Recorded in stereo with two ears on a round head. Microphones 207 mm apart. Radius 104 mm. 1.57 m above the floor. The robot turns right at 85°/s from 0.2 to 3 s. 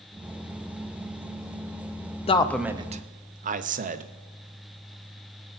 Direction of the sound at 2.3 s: 25° left (ahead or behind).